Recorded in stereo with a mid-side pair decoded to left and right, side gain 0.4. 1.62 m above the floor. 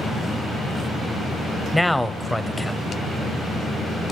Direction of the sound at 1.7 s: 10° left.